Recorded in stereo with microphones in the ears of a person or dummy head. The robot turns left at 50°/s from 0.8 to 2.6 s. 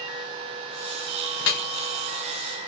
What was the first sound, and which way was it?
Dripping, 70° left (ahead or behind).